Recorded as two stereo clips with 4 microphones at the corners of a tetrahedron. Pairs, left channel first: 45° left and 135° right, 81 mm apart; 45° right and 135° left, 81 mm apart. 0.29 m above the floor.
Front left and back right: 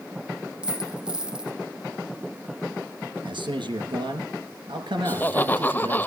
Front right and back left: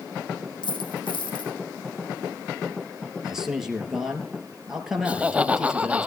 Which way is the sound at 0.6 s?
55° right.